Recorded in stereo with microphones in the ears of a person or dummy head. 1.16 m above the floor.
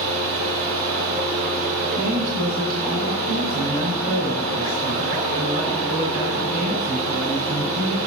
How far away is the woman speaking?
About 5 m.